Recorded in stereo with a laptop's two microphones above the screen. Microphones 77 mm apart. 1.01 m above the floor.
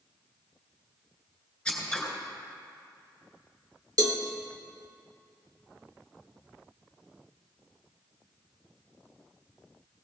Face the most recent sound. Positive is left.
turn(degrees=-55)  # may be behind; listen again after turning